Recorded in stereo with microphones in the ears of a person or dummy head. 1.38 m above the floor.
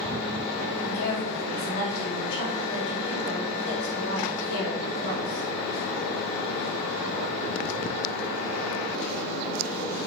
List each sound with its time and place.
0.8 s a woman speaking: 75° left (ahead or behind), 3.5 m